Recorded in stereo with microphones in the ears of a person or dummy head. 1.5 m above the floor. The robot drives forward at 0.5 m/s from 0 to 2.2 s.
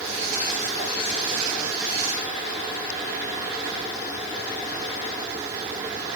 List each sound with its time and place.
Only background noise.